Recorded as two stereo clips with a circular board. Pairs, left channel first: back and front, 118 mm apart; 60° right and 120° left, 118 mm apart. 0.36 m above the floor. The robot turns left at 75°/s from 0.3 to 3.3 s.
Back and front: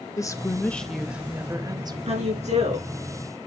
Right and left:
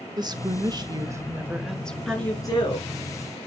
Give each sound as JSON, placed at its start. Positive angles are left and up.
{"t": 0.2, "sound": "a woman speaking", "azimuth_deg": 135, "distance_m": 0.9}
{"t": 2.1, "sound": "a woman speaking", "azimuth_deg": 25, "distance_m": 5.5}